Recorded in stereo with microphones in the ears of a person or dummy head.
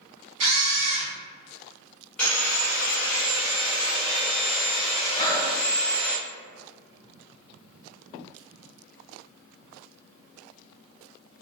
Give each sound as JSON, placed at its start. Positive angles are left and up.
{"t": 0.4, "sound": "a camera shutter", "side_deg": -75, "distance_m": 1.4}
{"t": 2.2, "sound": "sawing", "side_deg": 0, "distance_m": 1.0}
{"t": 5.2, "sound": "breathing", "side_deg": 20, "distance_m": 0.7}